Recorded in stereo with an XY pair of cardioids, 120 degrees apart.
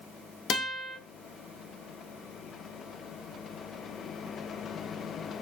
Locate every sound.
0.5 s a guitar: 60° left, 0.5 m